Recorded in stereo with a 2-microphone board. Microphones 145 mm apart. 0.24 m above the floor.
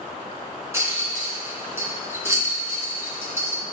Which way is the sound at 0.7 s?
20° right (ahead or behind).